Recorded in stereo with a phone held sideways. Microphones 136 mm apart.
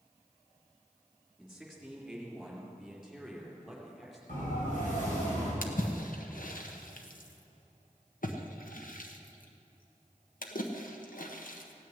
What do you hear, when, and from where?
1.4 s a man speaking: centre (ahead or behind), 4 m
4.3 s a siren: 70° left (ahead or behind), 5.5 m; by 5.5 s 65° left (ahead or behind), 6 m
5.6 s a splash: 70° left (ahead or behind), 1.2 m